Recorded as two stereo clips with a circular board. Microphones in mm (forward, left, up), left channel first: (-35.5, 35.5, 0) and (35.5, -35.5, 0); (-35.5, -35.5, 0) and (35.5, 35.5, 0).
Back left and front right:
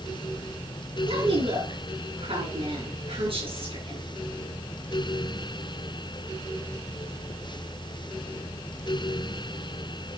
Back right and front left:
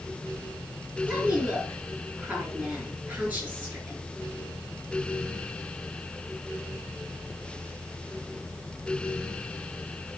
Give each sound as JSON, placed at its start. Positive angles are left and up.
{"t": 1.1, "sound": "a woman speaking", "azimuth_deg": -30, "distance_m": 5.0}